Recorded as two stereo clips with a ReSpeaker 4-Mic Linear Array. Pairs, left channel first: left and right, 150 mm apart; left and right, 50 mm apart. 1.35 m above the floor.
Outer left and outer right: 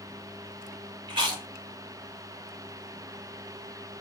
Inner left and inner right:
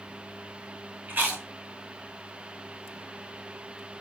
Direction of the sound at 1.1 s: 30° right (ahead or behind).